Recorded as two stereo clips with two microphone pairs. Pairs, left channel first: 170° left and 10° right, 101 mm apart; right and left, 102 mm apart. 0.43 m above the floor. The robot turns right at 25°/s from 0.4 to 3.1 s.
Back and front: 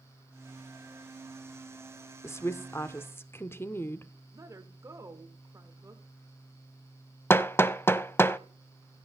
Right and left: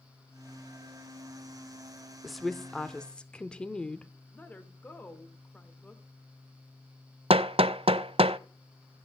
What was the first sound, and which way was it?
A woman speaking, 175° left.